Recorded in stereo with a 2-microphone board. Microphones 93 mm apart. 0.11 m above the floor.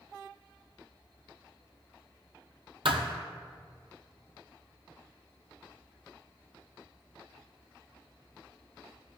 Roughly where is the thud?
Right.